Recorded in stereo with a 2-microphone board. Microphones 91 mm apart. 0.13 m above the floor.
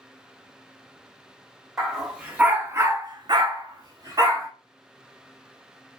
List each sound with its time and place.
1.8 s a dog barking: 5° right (ahead or behind), 1.2 m; by 4.5 s 35° right (ahead or behind), 1.2 m